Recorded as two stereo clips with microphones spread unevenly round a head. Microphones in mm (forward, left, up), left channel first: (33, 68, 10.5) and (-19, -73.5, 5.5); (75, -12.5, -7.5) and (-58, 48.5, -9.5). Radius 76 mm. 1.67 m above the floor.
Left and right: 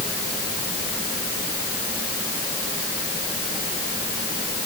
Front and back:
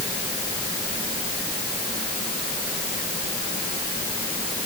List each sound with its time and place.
Only background noise.